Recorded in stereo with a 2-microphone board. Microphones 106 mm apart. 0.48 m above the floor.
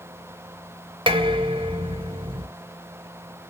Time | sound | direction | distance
1.1 | dishes clattering | 50° right (ahead or behind) | 0.9 m